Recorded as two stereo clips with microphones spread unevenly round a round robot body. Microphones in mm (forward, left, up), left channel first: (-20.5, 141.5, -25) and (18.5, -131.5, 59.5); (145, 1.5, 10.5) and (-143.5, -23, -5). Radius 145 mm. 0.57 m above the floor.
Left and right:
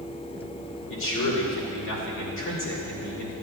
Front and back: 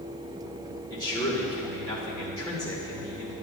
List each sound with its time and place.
0.9 s a man speaking: 85° left, 2.5 m